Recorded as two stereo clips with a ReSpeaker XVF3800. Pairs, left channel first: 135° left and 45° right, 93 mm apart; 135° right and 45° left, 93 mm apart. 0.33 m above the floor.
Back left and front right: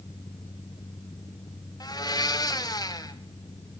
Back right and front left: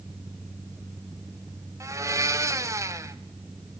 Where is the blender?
95° left, 1.2 m.